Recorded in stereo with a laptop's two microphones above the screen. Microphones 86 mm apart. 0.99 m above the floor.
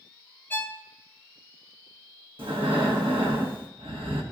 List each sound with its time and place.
0.5 s a violin: 20° left (ahead or behind), 0.7 m
2.4 s breathing: 80° right, 1.2 m